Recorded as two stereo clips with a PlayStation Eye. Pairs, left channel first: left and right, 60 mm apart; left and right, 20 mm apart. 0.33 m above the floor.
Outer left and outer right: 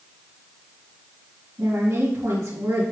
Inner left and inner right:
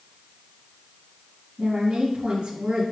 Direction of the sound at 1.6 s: 50° right (ahead or behind).